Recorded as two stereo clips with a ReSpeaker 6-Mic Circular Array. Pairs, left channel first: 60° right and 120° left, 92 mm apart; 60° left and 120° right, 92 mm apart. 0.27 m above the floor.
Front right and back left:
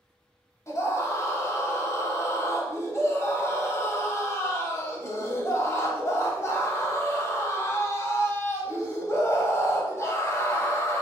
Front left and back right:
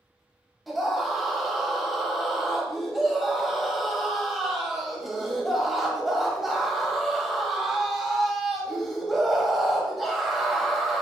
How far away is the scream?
About 1.0 m.